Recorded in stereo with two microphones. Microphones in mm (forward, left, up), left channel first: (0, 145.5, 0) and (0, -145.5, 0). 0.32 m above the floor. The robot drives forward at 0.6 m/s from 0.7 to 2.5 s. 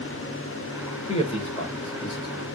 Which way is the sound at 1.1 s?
20° left (ahead or behind).